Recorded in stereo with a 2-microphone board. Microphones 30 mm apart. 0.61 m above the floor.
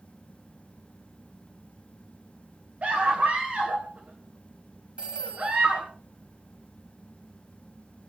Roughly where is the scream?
Right.